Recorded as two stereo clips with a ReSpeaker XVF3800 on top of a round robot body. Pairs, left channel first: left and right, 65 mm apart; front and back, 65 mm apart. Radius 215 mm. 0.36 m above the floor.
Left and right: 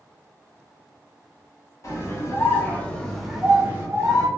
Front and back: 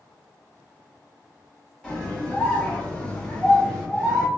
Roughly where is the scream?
Left.